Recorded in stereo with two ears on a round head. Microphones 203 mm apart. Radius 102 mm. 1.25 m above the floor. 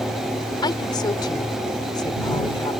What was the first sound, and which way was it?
A woman speaking, 20° left (ahead or behind).